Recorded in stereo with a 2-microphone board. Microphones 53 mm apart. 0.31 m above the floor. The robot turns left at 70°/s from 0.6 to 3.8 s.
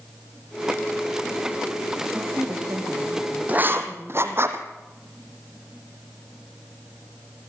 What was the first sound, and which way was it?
A woman speaking, 45° right.